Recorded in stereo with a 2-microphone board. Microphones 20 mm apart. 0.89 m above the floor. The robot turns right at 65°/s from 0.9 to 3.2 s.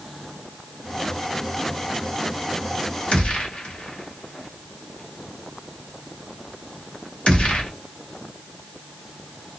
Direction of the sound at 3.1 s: 80° left.